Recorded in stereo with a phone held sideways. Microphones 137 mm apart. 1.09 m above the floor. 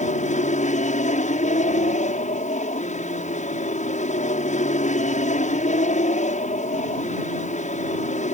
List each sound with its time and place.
0.0 s an aircraft: 60° left (ahead or behind)